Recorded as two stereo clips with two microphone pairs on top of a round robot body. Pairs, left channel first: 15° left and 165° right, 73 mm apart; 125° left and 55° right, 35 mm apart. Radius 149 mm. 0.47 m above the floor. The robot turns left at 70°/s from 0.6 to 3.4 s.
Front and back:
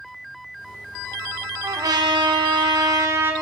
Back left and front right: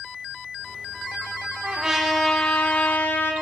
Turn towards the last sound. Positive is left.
turn(degrees=125)